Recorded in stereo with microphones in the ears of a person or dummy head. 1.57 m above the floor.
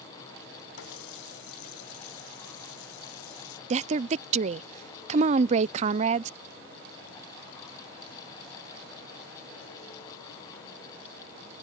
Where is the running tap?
85° left.